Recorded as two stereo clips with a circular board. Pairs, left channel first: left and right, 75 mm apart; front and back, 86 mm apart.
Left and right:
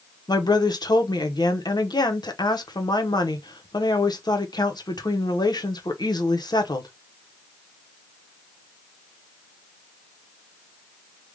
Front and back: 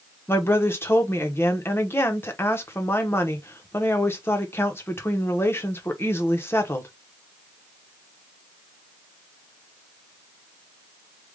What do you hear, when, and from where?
0.3 s a woman speaking: 65° left, 0.9 m